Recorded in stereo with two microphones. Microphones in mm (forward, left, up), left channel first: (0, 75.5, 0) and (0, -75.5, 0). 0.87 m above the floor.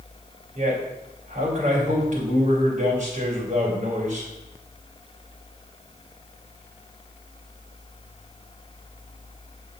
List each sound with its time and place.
0.6 s a man speaking: 55° right (ahead or behind), 2.5 m